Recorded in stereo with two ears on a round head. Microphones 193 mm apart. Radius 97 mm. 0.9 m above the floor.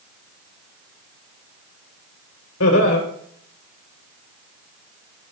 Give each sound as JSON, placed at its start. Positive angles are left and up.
{"t": 2.6, "sound": "laughter", "side_deg": 75, "distance_m": 3.5}